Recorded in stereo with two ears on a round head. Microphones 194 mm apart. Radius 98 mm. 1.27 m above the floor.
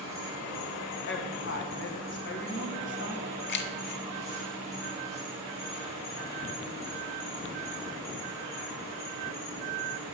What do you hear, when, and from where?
0.0 s an insect: 90° left, 3 m
1.1 s a woman speaking: 60° left (ahead or behind), 1.4 m
3.5 s keys jangling: 50° left (ahead or behind), 0.6 m